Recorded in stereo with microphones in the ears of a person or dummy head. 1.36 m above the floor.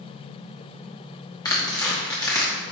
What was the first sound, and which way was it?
Tearing paper, 15° left (ahead or behind).